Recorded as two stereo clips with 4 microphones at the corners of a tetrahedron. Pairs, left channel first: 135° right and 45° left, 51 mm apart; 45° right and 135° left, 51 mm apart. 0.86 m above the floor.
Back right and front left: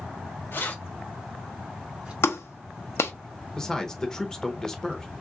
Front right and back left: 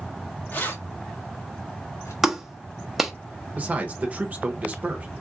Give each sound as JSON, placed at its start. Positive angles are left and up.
{"t": 0.5, "sound": "keys jangling", "azimuth_deg": -95, "distance_m": 1.1}
{"t": 2.2, "sound": "a clap", "azimuth_deg": -145, "distance_m": 0.7}
{"t": 3.6, "sound": "a man speaking", "azimuth_deg": 155, "distance_m": 0.9}